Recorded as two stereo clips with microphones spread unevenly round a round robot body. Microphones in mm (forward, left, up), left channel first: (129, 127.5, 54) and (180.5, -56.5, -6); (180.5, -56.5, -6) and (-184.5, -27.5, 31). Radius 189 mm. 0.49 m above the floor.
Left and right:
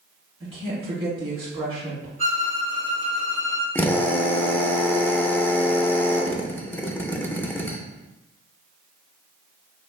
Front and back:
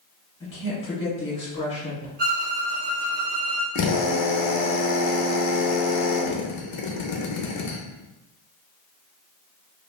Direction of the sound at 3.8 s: 10° left.